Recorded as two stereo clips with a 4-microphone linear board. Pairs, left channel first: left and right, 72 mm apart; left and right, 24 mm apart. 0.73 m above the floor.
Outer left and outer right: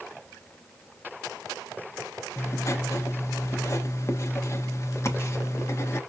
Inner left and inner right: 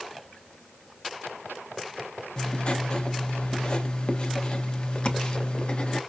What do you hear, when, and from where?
2.4 s writing: 40° left (ahead or behind), 0.9 m